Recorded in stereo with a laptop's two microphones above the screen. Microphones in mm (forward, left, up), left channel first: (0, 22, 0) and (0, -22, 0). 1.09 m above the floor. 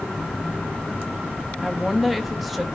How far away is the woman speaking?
About 0.6 m.